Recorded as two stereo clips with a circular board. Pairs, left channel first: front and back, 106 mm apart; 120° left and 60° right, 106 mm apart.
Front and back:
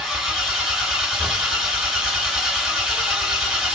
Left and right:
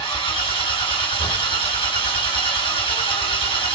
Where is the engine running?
95° left, 2.5 m.